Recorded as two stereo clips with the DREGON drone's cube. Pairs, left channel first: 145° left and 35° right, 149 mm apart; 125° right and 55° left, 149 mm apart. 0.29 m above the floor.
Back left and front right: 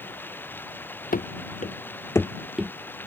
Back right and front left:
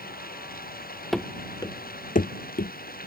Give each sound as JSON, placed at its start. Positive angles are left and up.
{"t": 0.0, "sound": "running water", "azimuth_deg": -135}
{"t": 1.1, "sound": "running footsteps", "azimuth_deg": 145}